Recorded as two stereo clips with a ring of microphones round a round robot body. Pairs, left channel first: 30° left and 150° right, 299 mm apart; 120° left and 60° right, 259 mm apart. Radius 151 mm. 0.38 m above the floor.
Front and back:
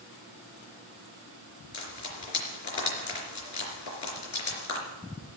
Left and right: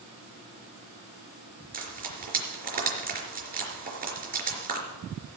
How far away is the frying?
About 4 m.